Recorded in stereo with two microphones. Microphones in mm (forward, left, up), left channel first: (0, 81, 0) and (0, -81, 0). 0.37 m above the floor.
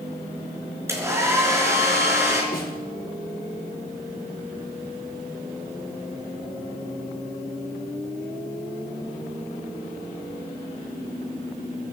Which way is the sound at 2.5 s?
65° left (ahead or behind).